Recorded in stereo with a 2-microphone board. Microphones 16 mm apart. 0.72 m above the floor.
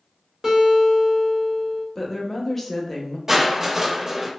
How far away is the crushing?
About 0.5 m.